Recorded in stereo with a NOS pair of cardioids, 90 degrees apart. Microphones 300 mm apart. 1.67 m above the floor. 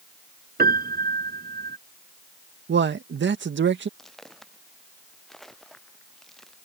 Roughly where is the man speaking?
Ahead right.